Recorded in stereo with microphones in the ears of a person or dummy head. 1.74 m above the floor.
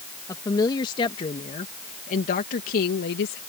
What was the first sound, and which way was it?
A woman speaking, 20° left (ahead or behind).